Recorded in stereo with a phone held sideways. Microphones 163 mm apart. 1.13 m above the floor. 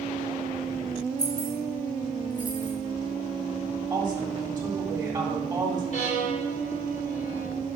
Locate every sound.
1.2 s keys jangling: 40° right (ahead or behind), 3.5 m; by 2.7 s 30° right (ahead or behind), 3 m
3.9 s a woman speaking: 25° right (ahead or behind), 3 m
5.9 s a violin: 50° left (ahead or behind), 4 m